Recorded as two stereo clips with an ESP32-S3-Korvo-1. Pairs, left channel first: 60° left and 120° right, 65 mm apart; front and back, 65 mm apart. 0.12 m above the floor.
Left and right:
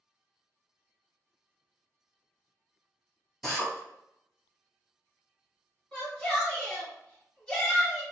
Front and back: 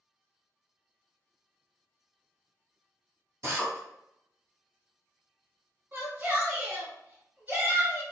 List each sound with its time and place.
3.4 s a drill: 150° left, 1.7 m
5.9 s a shout: 130° left, 2.0 m